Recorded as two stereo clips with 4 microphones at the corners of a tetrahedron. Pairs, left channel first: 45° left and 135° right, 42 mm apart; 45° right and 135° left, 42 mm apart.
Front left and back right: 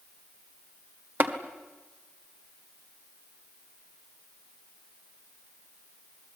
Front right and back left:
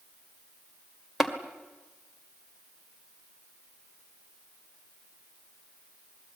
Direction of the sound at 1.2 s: 140° right.